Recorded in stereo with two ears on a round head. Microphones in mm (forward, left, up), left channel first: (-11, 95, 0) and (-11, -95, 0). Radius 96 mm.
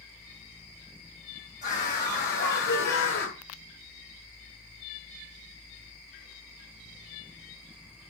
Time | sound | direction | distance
1.6 | a scream | 40° left (ahead or behind) | 3 m